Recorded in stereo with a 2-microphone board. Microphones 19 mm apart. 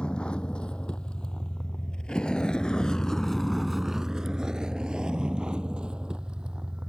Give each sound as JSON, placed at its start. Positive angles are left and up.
{"t": 0.0, "sound": "a vehicle", "side_deg": 70}